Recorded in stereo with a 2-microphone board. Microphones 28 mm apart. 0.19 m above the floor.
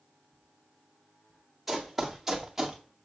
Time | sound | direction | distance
1.7 | running footsteps | centre (ahead or behind) | 2 m